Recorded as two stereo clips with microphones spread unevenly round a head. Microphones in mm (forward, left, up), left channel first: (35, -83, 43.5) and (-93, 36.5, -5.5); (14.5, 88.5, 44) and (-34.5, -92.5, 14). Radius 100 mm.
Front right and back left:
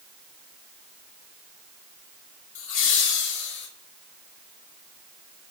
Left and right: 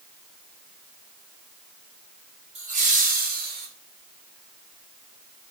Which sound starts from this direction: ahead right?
Laughter, at 2.5 s.